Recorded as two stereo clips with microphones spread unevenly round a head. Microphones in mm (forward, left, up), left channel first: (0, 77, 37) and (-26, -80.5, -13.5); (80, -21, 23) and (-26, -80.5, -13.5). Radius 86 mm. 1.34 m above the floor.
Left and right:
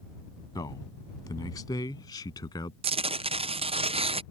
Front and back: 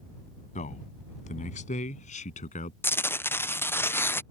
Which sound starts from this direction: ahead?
A man speaking, at 0.6 s.